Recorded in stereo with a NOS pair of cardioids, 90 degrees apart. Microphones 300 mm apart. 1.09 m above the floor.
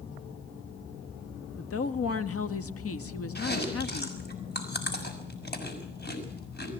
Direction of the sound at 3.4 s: 30° left.